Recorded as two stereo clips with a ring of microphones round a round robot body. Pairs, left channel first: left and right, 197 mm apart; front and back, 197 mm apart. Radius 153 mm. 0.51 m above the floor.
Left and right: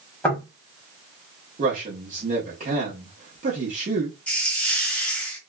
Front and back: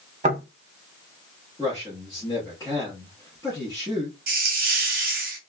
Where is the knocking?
165° left, 1.2 m.